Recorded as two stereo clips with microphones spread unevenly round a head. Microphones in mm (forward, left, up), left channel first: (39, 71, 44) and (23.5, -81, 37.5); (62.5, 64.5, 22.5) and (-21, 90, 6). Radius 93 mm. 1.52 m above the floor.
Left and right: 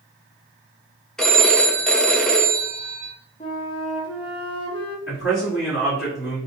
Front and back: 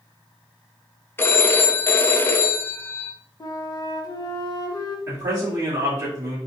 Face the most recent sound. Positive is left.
turn(degrees=110)